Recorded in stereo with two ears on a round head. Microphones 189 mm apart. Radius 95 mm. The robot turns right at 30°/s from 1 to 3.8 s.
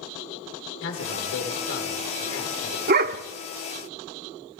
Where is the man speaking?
60° left, 3.5 m; by 2.8 s 115° left, 3.5 m.